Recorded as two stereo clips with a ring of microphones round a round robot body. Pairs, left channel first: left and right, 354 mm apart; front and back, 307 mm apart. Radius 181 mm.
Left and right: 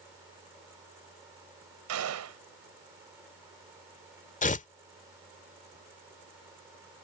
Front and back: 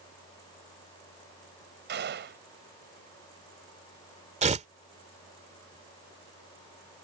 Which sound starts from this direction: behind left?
Tearing paper, at 4.4 s.